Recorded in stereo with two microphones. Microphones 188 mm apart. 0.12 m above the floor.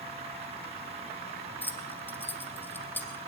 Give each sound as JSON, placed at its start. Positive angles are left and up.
{"t": 1.6, "sound": "keys jangling", "side_deg": 10, "distance_m": 3.5}